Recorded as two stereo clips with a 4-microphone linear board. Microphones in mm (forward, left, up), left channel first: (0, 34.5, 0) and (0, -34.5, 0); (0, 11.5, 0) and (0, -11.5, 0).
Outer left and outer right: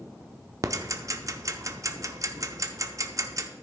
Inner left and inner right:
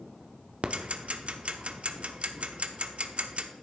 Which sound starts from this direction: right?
Ticking, at 0.6 s.